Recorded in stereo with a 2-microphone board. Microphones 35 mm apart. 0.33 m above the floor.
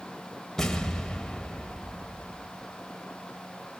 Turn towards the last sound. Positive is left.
turn(degrees=10)  # may be behind; listen again after turning